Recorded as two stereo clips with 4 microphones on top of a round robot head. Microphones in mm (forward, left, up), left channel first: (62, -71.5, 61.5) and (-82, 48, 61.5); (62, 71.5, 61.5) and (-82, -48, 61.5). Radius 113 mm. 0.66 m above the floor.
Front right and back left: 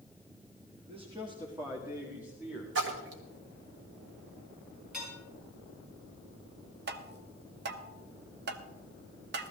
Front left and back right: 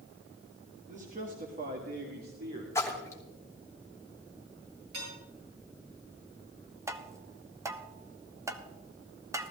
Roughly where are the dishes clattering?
Behind right.